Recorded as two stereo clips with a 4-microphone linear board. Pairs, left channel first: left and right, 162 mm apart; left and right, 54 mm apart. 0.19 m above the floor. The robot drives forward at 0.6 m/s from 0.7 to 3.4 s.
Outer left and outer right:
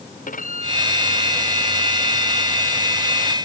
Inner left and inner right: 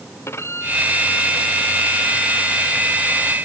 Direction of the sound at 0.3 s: 55° left (ahead or behind).